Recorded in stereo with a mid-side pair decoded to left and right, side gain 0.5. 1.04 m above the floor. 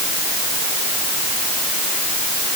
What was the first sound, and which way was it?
Only background noise.